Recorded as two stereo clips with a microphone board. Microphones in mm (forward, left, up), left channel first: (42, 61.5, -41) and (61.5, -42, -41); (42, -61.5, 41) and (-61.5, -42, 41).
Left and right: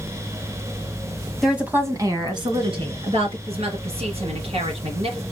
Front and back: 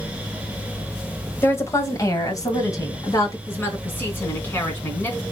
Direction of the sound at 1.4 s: 10° left.